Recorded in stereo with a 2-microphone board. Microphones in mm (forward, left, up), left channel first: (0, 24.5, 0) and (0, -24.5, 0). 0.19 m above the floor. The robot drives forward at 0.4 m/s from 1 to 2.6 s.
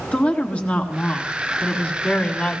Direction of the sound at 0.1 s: 30° left (ahead or behind).